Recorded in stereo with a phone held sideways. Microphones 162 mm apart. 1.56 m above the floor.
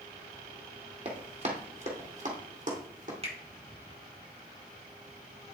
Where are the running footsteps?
40° right (ahead or behind), 2 m; by 3.1 s 55° right (ahead or behind), 3 m.